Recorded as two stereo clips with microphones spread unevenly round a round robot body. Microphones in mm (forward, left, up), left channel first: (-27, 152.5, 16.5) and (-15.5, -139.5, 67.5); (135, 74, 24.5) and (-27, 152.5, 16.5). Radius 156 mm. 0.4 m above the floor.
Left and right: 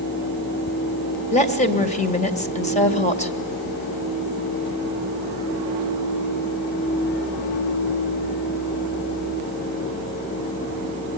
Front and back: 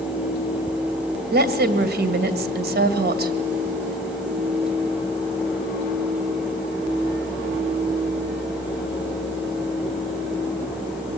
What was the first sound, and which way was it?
A woman speaking, 150° left.